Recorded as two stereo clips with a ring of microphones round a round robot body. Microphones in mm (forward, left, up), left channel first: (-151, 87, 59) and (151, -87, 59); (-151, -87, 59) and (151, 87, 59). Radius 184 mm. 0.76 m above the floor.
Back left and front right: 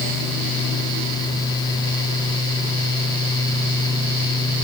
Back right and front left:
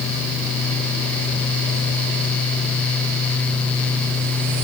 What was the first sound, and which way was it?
Only background noise.